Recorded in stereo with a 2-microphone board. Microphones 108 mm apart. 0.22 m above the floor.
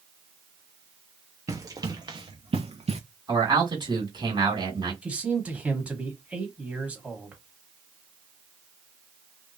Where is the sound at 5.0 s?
10° right (ahead or behind), 1.0 m.